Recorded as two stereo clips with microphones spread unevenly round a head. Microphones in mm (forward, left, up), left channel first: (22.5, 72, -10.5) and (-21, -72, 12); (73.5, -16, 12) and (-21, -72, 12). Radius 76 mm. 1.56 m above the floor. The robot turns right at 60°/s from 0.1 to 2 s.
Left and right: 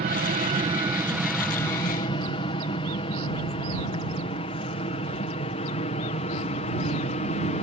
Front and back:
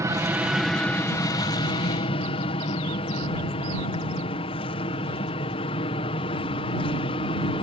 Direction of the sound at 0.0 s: 95° right.